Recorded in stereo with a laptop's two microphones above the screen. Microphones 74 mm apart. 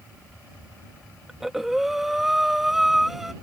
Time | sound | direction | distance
1.3 | breathing | 5° right (ahead or behind) | ?